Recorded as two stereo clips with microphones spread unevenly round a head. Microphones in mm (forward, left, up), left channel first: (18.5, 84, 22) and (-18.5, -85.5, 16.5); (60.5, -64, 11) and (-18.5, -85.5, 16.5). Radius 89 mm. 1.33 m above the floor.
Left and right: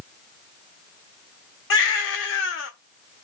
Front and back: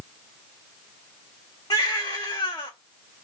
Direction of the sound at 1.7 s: 80° left.